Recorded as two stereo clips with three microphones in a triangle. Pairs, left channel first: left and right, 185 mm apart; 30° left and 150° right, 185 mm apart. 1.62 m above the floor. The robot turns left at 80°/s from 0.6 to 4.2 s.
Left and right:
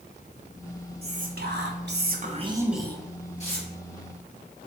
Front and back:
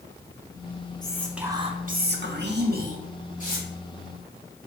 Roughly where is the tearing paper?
Ahead left.